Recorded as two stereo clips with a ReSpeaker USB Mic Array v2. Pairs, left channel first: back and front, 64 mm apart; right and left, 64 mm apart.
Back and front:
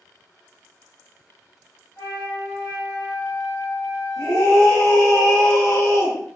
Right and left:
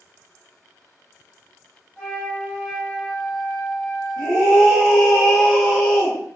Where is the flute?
155° right, 1.2 m.